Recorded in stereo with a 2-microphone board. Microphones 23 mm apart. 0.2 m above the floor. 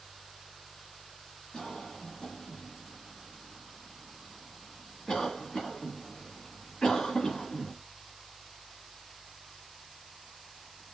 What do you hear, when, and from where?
1.5 s a cough: 30° left (ahead or behind), 1.7 m